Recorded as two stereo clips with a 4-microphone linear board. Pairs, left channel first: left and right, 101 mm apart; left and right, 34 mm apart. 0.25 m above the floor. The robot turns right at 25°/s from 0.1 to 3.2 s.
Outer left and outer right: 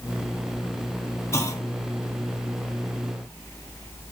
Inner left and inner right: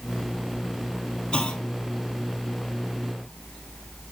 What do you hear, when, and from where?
1.3 s a clunk: 25° left (ahead or behind), 1.4 m; by 1.7 s 35° left (ahead or behind), 1.4 m